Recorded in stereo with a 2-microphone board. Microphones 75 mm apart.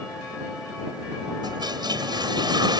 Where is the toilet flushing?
80° right.